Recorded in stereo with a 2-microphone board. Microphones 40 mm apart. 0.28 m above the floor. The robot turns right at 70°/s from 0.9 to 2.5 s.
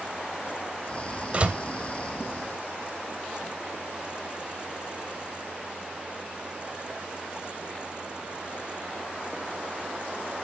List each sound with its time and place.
1.3 s a door slam: 30° right (ahead or behind), 0.6 m; by 1.6 s 35° right (ahead or behind), 0.6 m